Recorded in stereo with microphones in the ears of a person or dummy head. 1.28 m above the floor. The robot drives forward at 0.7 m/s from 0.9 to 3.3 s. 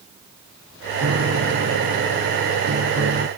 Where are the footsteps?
No footsteps in this recording.